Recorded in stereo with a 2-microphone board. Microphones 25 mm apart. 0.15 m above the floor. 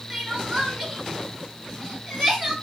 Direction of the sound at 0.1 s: 10° right (ahead or behind).